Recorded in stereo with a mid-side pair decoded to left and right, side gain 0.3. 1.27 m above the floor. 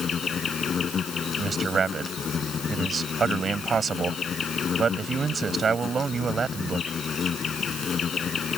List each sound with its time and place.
0.0 s an insect: 65° left
1.4 s a man speaking: 60° right